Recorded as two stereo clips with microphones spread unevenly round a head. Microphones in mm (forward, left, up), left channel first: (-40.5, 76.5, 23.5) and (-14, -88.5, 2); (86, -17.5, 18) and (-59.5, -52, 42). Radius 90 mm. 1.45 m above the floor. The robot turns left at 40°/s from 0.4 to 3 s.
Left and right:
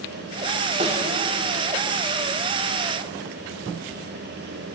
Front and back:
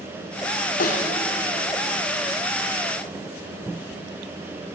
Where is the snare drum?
20° right, 3 m; by 1.1 s 30° right, 3 m.